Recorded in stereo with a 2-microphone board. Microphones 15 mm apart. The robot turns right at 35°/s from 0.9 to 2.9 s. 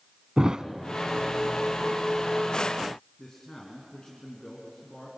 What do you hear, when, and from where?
0.4 s a thud: 50° right (ahead or behind), 0.8 m
3.2 s a man speaking: 45° left (ahead or behind), 3 m